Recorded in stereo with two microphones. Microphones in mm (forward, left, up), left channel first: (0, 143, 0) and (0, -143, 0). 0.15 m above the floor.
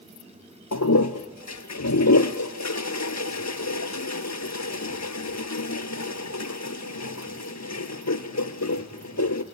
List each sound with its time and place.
0.7 s a toilet flushing: 70° left (ahead or behind), 1.1 m